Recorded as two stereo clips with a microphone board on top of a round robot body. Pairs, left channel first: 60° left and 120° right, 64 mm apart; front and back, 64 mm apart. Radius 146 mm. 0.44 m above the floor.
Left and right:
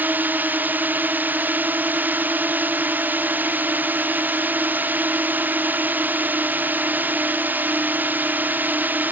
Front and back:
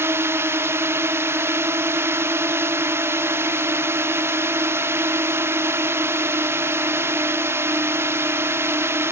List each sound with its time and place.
0.0 s a drone: 165° right